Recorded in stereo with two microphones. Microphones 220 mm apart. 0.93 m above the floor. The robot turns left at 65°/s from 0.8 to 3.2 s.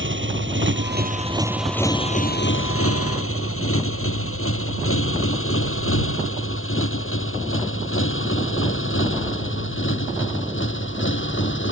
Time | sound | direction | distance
0.0 | a motorcycle | 60° right (ahead or behind) | ?